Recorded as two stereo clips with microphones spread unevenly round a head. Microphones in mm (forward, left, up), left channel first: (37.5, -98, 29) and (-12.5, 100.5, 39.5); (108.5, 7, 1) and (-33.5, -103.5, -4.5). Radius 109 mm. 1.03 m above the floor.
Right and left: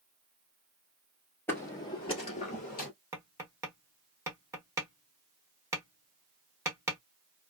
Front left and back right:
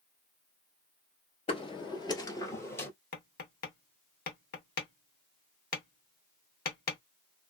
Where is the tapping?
35° left, 0.9 m.